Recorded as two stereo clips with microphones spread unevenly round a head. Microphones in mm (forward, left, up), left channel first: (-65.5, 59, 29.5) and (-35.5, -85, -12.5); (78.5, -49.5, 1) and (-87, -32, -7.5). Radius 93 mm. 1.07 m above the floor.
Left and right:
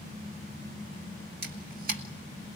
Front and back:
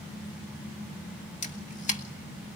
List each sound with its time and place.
1.4 s a camera shutter: 50° right, 2.5 m